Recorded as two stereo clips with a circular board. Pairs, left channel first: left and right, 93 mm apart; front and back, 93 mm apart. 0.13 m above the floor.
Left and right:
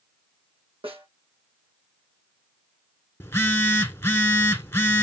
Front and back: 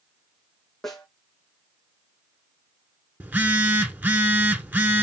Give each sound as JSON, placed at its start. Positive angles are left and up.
{"t": 0.8, "sound": "a snare drum", "azimuth_deg": -85, "distance_m": 2.5}
{"t": 3.2, "sound": "a phone buzzing", "azimuth_deg": 130, "distance_m": 0.8}